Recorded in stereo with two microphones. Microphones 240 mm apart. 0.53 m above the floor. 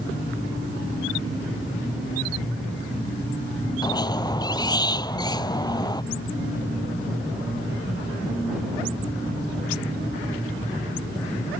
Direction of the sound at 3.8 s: 15° left (ahead or behind).